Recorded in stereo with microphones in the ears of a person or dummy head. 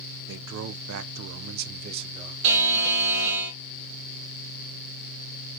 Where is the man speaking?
70° right (ahead or behind), 0.8 m; by 2.3 s 20° right (ahead or behind), 0.9 m.